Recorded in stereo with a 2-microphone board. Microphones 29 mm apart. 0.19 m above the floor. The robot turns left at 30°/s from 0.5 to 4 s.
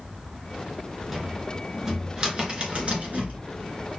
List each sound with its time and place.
1.1 s a cupboard door: centre (ahead or behind), 1.8 m; by 3.4 s 55° right (ahead or behind), 1.8 m